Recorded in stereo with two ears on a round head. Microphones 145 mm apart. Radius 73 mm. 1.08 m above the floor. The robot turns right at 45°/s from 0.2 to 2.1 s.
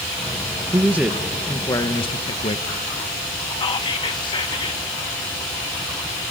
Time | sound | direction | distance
0.7 | a man speaking | 25° right | 0.9 m
3.6 | whispering | 30° left (ahead or behind) | 1.2 m